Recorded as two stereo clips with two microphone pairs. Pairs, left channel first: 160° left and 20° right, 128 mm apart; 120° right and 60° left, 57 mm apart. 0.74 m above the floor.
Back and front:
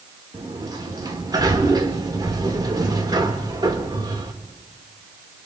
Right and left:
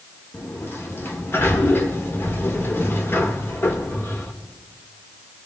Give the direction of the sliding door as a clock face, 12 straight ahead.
3 o'clock.